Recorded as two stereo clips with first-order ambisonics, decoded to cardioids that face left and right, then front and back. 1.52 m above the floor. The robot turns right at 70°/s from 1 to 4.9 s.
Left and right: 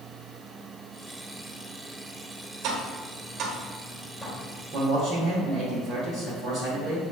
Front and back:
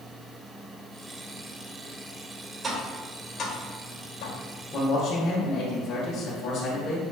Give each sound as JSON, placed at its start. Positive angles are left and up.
{"t": 2.6, "sound": "tapping", "azimuth_deg": -110, "distance_m": 0.9}
{"t": 4.7, "sound": "a man speaking", "azimuth_deg": -60, "distance_m": 1.2}